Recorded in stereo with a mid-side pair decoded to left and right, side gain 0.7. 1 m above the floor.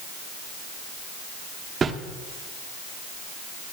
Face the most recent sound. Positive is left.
turn(degrees=-30)